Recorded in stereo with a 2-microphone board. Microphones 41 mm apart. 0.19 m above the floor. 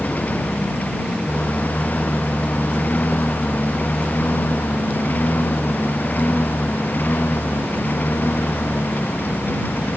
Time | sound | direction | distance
0.0 | a lawn mower | 40° left (ahead or behind) | ?